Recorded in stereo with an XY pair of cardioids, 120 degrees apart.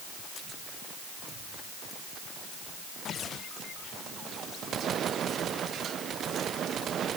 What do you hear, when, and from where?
Only background noise.